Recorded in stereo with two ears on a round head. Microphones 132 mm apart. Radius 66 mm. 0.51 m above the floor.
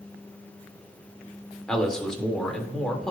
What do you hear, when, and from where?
1.7 s a man speaking: 5° left (ahead or behind), 1.5 m